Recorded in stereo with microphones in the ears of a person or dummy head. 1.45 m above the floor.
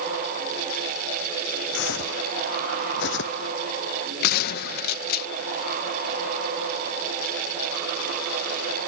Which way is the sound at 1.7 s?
75° left (ahead or behind).